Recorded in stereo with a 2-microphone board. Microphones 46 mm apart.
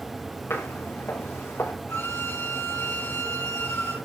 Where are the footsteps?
80° left, 4.5 m; by 1.7 s 85° left, 5.5 m.